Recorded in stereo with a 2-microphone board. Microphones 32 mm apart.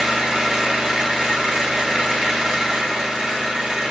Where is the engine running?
30° right (ahead or behind), 1.6 m.